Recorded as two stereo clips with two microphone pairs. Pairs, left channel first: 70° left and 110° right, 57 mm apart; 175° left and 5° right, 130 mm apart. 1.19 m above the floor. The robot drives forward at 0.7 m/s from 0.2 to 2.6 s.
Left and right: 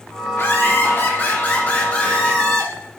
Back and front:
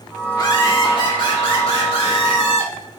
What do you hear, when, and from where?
0.3 s laughter: 115° left, 2.5 m; by 2.7 s 140° left, 3.5 m